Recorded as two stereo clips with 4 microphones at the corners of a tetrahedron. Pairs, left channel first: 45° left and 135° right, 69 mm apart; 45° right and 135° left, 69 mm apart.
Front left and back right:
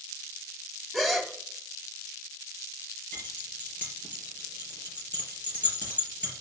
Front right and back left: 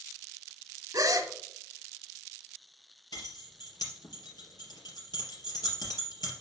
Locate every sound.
0.9 s a gasp: 135° left, 1.1 m
3.1 s keys jangling: 25° right, 4 m